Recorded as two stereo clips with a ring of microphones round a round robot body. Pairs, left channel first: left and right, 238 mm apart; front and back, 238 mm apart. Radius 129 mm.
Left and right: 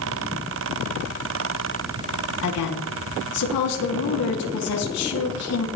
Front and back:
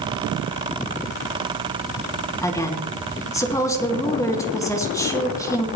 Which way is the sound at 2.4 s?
75° left.